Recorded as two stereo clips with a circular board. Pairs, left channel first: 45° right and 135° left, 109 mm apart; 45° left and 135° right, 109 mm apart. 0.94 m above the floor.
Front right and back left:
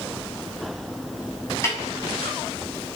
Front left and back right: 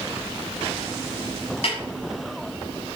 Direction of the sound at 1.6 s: 20° left.